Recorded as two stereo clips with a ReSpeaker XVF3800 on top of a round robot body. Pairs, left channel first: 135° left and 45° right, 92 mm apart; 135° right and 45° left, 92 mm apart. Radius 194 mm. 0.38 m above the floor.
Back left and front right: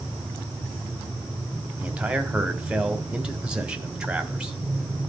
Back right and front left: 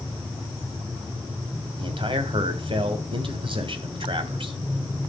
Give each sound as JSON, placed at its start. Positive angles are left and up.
{"t": 1.8, "sound": "a man speaking", "azimuth_deg": 35, "distance_m": 1.9}